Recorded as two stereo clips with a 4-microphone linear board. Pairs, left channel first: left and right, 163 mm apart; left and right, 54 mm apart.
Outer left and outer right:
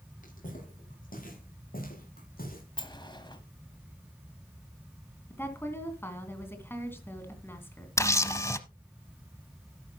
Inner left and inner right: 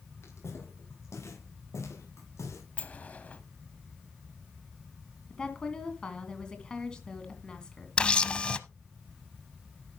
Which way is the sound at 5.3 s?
15° left (ahead or behind).